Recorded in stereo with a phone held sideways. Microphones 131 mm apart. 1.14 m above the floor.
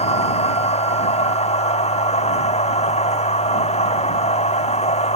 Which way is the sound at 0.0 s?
55° left (ahead or behind).